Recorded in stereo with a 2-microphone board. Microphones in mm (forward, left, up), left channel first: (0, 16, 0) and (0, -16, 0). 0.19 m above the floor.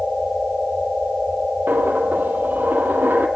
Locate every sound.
1.7 s a dropped coin: 75° right (ahead or behind), 1.9 m